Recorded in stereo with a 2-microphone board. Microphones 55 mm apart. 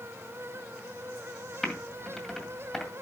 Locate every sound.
1.6 s typing on a keyboard: 5° left (ahead or behind), 2 m